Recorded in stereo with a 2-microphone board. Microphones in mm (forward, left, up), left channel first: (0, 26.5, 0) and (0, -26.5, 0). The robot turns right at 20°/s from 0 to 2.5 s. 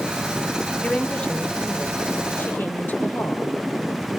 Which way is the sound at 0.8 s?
10° left.